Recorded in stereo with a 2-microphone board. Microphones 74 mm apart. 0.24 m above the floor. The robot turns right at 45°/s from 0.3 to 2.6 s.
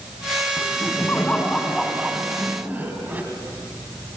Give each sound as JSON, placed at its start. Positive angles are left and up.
{"t": 0.6, "sound": "laughter", "azimuth_deg": 120, "distance_m": 2.0}